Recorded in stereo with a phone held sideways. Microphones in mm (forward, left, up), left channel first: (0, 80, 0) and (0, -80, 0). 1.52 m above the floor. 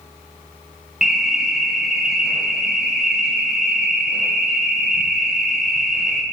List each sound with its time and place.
1.0 s an alarm: 5° right (ahead or behind), 0.9 m